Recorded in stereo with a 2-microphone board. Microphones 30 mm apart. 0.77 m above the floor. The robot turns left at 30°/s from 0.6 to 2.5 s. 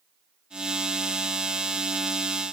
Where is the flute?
No flute in this recording.